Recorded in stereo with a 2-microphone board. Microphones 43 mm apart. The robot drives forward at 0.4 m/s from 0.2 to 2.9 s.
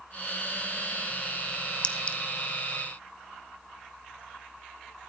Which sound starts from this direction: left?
A clink, at 1.8 s.